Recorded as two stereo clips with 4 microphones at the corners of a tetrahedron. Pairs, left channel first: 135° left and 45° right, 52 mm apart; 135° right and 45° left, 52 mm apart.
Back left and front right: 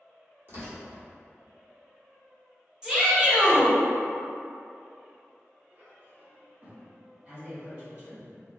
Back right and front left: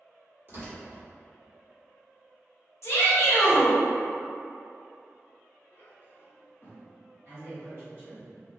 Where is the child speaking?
95° right, 0.9 m.